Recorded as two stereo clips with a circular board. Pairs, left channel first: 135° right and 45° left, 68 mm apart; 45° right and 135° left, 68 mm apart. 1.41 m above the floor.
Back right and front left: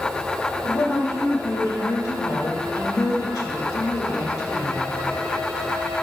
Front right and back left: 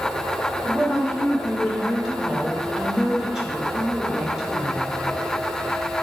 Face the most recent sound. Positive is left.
turn(degrees=-140)